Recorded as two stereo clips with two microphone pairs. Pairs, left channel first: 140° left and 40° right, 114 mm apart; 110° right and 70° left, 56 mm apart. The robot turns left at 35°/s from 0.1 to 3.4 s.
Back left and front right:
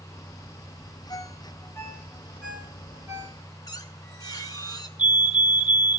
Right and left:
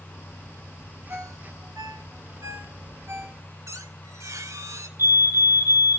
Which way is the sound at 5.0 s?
40° left.